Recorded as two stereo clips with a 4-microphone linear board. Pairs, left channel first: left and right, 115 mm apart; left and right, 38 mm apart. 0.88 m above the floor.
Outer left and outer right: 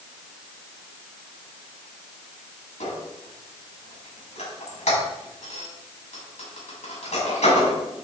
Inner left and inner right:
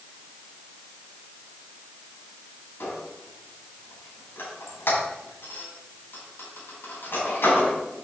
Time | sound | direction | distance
2.8 | a squeak | 85° left | 4.5 m